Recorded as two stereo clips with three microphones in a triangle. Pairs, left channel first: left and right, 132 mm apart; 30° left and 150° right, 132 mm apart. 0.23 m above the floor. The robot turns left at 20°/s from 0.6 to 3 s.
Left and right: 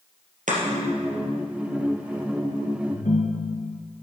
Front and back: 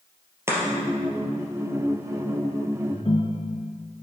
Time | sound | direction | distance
0.5 | chopping | 80° right | 3.5 m
2.9 | a ringtone | 80° left | 1.5 m